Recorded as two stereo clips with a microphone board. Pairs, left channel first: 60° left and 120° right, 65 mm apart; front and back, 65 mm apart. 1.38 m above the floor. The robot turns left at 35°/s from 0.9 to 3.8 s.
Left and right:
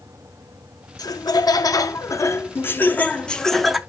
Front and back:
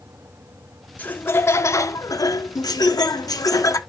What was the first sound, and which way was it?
Laughter, 65° left.